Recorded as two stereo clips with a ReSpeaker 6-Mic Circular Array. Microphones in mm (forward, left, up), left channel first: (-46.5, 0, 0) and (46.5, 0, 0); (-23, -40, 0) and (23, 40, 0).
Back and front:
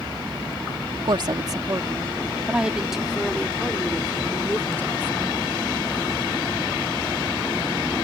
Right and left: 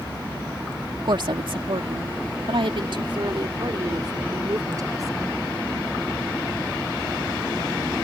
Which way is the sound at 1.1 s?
30° left.